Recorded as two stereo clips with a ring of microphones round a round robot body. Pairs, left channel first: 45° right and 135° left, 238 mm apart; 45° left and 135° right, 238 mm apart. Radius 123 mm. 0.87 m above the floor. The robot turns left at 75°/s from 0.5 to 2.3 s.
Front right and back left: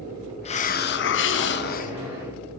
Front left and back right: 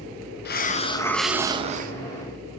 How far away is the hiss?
About 0.6 m.